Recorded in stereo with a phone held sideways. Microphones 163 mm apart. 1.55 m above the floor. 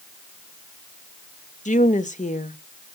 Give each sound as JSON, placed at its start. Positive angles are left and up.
{"t": 1.6, "sound": "a woman speaking", "side_deg": 50, "distance_m": 1.1}